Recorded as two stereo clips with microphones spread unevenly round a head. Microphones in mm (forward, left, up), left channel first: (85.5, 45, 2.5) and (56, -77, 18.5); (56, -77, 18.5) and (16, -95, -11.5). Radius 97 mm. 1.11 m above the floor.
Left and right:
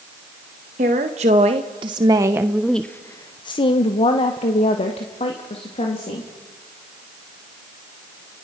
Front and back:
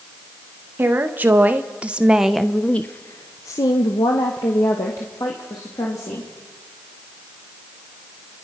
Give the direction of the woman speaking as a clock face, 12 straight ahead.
5 o'clock.